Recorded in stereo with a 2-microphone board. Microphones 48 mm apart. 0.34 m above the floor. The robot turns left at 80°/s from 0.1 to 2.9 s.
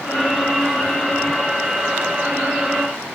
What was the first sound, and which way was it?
Only background noise.